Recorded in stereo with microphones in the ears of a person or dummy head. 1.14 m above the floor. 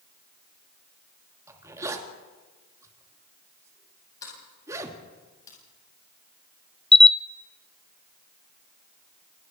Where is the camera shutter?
5° left (ahead or behind), 0.6 m.